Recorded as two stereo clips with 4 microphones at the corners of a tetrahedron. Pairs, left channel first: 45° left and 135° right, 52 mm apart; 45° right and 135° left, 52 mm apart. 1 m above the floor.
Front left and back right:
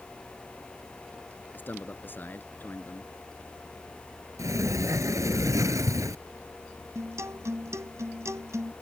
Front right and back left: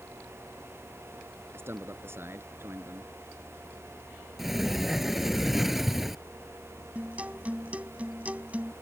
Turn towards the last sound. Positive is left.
turn(degrees=-160)